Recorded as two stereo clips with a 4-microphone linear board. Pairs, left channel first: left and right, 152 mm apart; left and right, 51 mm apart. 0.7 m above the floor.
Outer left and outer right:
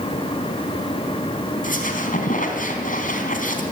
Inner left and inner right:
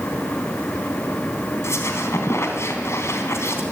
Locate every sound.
1.6 s a squeak: 65° left (ahead or behind), 3.5 m